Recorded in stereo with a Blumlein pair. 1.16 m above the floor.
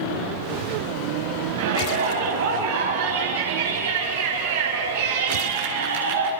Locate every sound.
1.6 s a shout: 65° right, 7 m